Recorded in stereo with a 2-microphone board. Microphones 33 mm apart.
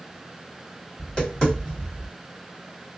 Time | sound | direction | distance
1.0 | tapping | 30° left (ahead or behind) | 2 m